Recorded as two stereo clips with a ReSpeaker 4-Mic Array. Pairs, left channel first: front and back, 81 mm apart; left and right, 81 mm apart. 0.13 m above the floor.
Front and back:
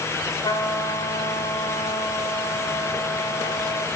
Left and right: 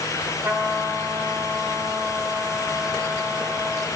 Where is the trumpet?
25° right, 6 m.